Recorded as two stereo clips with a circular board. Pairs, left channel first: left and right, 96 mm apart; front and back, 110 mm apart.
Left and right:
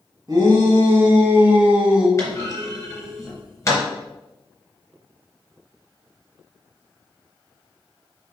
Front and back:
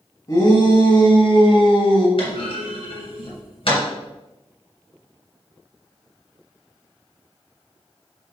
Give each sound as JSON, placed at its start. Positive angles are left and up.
{"t": 0.3, "sound": "a shout", "azimuth_deg": -45, "distance_m": 2.5}
{"t": 2.2, "sound": "a clunk", "azimuth_deg": 30, "distance_m": 3.0}